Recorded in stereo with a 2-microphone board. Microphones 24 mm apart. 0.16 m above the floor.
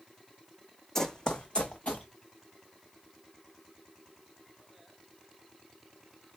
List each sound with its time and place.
0.9 s running footsteps: 20° left (ahead or behind), 0.6 m; by 2.1 s 65° left (ahead or behind), 1.0 m